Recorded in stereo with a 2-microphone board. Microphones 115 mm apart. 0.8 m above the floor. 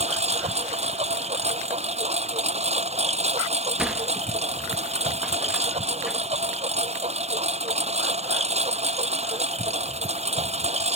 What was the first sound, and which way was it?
A lawn mower, 70° right (ahead or behind).